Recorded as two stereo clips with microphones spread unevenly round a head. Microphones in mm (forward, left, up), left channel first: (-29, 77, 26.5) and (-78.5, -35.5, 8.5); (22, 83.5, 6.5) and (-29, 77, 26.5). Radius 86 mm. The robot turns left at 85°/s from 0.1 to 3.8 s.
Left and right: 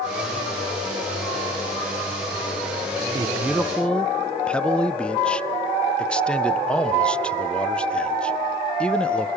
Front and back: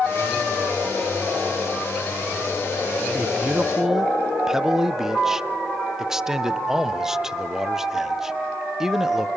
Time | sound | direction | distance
3.1 | a man speaking | 170° right | 0.5 m